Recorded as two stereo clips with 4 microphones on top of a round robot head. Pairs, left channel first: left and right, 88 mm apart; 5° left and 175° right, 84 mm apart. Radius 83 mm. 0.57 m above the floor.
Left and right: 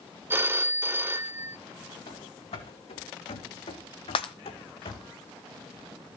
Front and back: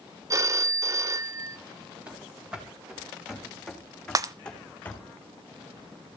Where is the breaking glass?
135° left, 0.7 m.